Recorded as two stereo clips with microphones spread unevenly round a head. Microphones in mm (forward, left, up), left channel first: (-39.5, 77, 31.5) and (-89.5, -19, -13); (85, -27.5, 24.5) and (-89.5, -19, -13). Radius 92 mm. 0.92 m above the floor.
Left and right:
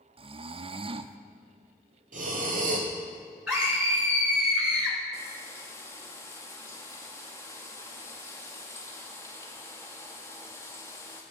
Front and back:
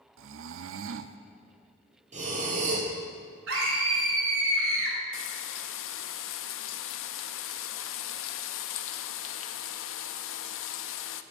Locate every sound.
0.2 s snoring: 170° right, 0.5 m
2.1 s breathing: 130° right, 2.5 m
3.5 s a scream: 165° left, 5 m
5.1 s frying: 10° right, 0.5 m